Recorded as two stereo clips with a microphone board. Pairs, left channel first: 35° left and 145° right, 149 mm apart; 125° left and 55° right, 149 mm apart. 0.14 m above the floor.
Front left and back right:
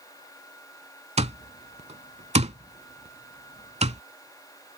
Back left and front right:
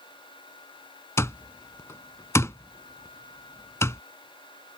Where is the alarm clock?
170° right.